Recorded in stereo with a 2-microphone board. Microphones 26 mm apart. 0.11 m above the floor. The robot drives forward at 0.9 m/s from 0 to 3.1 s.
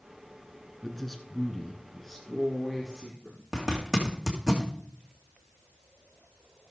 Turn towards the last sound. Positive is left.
turn(degrees=-20)  # may be behind; listen again after turning